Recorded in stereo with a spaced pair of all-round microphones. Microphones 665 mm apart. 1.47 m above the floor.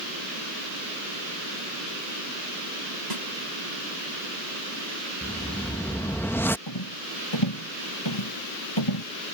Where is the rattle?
40° left (ahead or behind).